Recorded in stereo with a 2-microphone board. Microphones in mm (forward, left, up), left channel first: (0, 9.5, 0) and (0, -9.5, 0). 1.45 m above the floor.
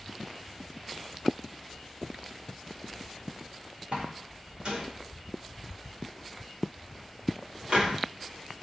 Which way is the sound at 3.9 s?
65° right (ahead or behind).